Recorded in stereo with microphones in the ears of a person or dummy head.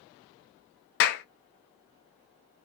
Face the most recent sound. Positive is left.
turn(degrees=50)  # may be behind; listen again after turning